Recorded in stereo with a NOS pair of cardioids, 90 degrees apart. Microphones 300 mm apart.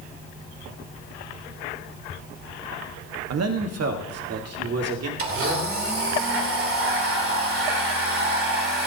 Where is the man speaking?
55° right, 1.4 m.